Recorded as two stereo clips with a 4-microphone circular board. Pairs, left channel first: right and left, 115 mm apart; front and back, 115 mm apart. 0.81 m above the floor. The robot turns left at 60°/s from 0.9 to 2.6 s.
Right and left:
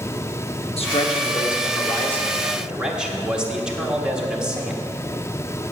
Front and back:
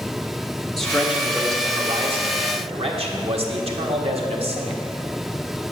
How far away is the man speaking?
About 1.4 m.